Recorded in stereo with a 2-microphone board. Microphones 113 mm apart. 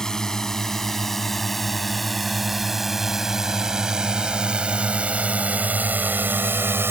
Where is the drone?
5° left (ahead or behind); by 6.9 s 20° right (ahead or behind).